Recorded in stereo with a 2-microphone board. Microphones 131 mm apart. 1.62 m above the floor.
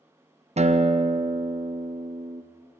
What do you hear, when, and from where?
0.6 s a guitar: 55° right (ahead or behind), 0.6 m